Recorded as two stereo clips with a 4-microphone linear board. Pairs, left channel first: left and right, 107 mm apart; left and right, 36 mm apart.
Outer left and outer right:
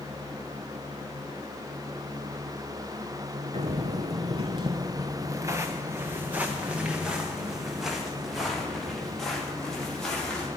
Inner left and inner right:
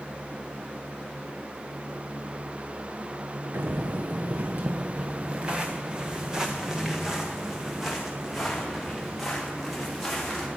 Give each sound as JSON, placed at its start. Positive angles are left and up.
{"t": 3.5, "sound": "footsteps", "side_deg": -75, "distance_m": 1.1}